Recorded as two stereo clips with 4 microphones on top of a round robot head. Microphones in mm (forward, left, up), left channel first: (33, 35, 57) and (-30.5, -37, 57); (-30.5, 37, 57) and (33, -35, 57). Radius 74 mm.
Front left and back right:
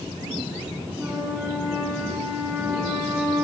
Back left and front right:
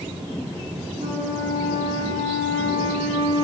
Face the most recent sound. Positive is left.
turn(degrees=-55)